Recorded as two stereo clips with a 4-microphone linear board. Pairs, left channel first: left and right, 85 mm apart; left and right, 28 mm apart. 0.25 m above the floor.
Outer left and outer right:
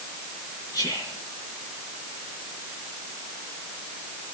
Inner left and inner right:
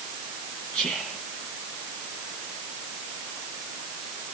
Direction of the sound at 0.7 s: 40° left (ahead or behind).